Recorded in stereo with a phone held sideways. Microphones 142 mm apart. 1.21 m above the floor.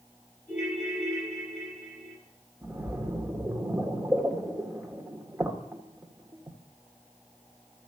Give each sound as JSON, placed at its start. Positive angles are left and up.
{"t": 0.5, "sound": "a ringtone", "side_deg": 55, "distance_m": 6.0}
{"t": 2.6, "sound": "a splash", "side_deg": -15, "distance_m": 1.8}